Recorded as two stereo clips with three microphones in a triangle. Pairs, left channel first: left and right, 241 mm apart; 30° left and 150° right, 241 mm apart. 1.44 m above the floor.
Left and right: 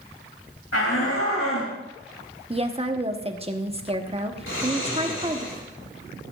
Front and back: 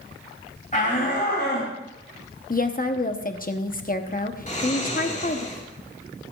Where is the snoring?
80° left, 1.9 m.